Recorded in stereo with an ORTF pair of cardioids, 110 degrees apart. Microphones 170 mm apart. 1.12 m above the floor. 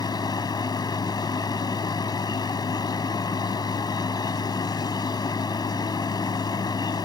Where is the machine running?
25° left.